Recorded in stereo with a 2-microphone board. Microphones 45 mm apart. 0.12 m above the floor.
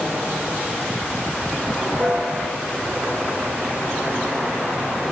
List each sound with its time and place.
2.0 s a piano: 50° right (ahead or behind), 1.8 m